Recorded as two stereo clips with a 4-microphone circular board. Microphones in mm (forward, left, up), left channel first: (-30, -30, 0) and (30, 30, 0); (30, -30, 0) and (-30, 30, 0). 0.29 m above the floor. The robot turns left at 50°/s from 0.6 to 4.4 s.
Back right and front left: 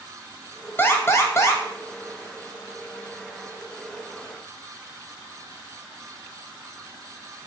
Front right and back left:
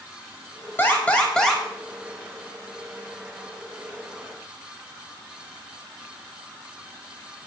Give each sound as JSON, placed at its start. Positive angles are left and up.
{"t": 0.8, "sound": "an alarm", "azimuth_deg": -95, "distance_m": 1.1}